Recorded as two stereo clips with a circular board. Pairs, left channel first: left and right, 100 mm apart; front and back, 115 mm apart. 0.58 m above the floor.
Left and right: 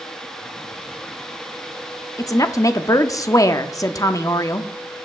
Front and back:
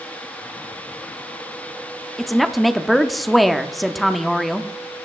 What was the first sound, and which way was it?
A woman speaking, 90° left.